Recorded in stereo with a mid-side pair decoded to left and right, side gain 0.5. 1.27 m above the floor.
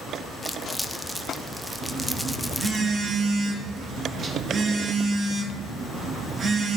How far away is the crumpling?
About 0.6 m.